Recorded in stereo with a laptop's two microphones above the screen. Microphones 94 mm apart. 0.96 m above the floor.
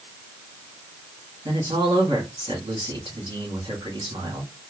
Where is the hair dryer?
No hair dryer in this recording.